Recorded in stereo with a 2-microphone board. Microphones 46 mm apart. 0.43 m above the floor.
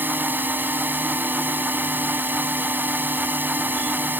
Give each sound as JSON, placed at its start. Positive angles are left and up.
{"t": 0.0, "sound": "a drone", "side_deg": -40}